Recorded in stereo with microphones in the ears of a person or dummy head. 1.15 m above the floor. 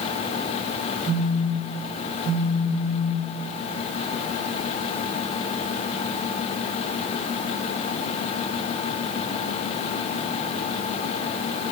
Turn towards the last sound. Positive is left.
turn(degrees=-75)  # may be behind; listen again after turning